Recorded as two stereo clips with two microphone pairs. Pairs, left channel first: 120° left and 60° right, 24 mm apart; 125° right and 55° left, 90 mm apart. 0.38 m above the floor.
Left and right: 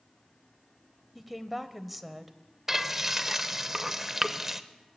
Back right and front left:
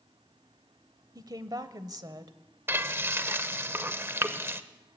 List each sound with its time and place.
1.1 s a woman speaking: 25° left, 1.6 m
2.7 s frying: 5° left, 1.2 m